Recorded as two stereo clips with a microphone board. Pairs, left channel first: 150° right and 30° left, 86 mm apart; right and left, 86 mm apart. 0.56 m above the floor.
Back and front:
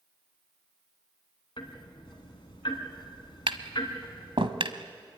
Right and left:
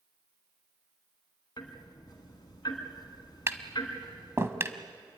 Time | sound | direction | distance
1.6 | ticking | 125° right | 3 m
3.5 | tapping | 30° left | 1.3 m